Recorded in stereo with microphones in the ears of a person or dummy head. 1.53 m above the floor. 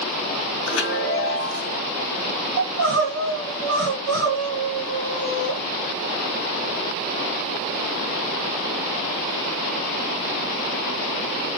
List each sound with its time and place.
0.7 s a chime: 65° left (ahead or behind), 0.7 m
2.6 s crying: 70° right (ahead or behind), 1.3 m